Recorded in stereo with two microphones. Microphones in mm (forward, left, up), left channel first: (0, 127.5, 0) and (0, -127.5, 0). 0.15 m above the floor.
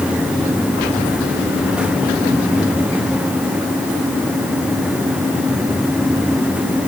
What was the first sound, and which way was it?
Only background noise.